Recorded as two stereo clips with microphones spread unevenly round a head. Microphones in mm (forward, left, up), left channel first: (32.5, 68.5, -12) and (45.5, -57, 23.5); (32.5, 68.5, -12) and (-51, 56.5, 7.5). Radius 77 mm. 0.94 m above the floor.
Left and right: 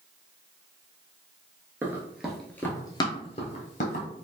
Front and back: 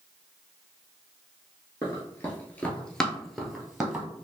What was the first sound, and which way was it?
Running footsteps, 55° right.